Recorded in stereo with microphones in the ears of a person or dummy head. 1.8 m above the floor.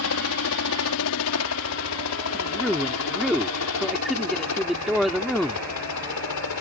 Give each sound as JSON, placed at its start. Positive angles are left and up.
{"t": 0.0, "sound": "a helicopter", "side_deg": 70}
{"t": 2.3, "sound": "a man speaking", "side_deg": -5}